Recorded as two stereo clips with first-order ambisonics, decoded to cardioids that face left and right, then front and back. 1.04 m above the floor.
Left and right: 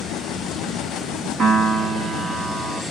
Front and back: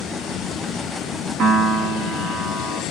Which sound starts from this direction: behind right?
A piano, at 1.4 s.